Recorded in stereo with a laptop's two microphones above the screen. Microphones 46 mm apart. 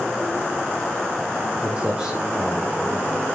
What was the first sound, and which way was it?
Footsteps, 25° right (ahead or behind).